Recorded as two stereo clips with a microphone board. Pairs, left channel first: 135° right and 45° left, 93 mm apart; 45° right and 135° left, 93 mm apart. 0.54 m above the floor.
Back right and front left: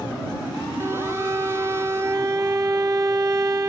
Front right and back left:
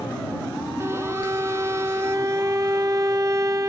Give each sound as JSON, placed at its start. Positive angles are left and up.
{"t": 0.8, "sound": "a violin", "azimuth_deg": 95}